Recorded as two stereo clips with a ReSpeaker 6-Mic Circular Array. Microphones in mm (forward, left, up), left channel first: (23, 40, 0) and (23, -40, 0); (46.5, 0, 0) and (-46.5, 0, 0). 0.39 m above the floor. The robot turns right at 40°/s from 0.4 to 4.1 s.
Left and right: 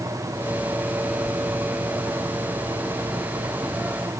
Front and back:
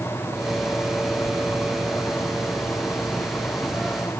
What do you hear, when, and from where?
Only background noise.